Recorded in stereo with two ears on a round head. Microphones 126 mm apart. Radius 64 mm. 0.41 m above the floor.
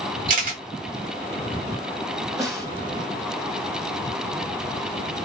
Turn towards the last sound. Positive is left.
turn(degrees=-25)  # may be behind; listen again after turning